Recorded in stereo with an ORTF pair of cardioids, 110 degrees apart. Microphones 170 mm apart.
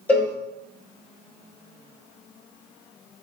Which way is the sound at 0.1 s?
10° left.